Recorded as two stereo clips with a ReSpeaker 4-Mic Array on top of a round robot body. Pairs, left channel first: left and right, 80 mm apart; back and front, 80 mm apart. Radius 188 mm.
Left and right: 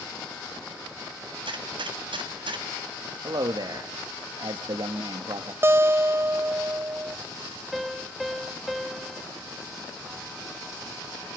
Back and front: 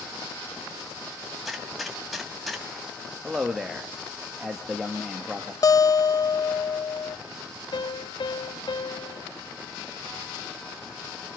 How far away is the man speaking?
About 1.7 m.